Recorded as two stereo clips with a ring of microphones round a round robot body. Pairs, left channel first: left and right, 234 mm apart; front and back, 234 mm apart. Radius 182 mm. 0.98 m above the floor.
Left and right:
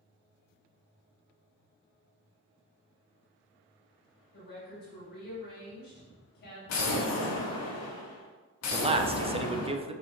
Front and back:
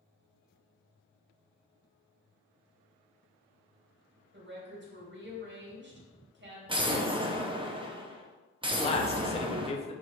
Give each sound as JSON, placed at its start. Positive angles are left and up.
{"t": 4.3, "sound": "a woman speaking", "azimuth_deg": 140, "distance_m": 2.5}
{"t": 6.7, "sound": "an explosion", "azimuth_deg": 110, "distance_m": 1.0}
{"t": 8.7, "sound": "a man speaking", "azimuth_deg": -40, "distance_m": 0.7}